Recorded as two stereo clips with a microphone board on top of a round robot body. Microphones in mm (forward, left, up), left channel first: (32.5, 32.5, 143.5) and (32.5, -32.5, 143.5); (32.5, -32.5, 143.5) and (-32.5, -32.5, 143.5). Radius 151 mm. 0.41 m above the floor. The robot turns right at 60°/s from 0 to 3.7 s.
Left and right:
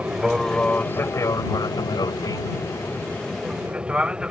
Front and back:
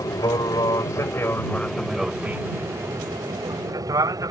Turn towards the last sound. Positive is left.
turn(degrees=-165)